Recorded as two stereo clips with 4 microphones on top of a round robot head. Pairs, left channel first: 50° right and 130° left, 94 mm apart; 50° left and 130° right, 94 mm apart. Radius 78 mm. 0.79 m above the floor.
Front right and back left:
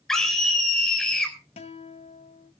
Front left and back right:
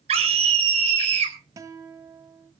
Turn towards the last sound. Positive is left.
turn(degrees=-70)